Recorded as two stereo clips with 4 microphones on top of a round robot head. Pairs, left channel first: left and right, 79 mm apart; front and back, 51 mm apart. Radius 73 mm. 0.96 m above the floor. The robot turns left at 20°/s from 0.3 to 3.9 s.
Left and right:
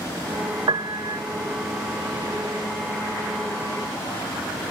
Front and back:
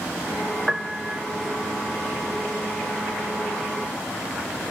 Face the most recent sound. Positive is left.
turn(degrees=-160)